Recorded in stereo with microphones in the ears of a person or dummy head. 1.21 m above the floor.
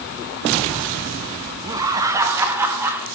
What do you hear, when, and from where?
1.6 s laughter: 20° right (ahead or behind), 1.6 m; by 3.1 s 10° right (ahead or behind), 2.5 m